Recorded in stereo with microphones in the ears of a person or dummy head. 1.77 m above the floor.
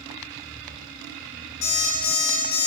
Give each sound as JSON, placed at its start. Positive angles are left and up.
{"t": 1.6, "sound": "an alarm clock", "side_deg": 15, "distance_m": 1.0}